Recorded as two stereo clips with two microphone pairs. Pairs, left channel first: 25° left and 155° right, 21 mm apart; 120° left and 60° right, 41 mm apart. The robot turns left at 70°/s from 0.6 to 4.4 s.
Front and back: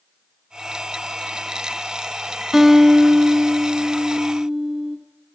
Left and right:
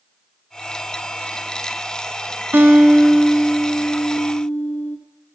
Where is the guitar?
90° right, 1.8 m; by 5.0 s 140° left, 1.8 m.